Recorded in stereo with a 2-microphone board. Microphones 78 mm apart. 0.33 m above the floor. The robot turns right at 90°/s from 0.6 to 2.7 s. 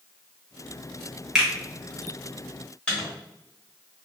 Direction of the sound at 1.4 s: 10° right (ahead or behind).